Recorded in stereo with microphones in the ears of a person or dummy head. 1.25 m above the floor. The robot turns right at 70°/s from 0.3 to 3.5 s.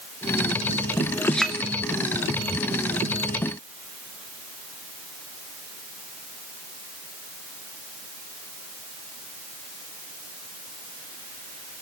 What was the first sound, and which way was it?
A clink, 15° left (ahead or behind).